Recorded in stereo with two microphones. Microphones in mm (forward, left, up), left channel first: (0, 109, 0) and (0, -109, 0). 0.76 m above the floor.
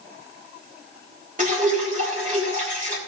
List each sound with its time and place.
1.4 s dripping: 35° right (ahead or behind), 3.5 m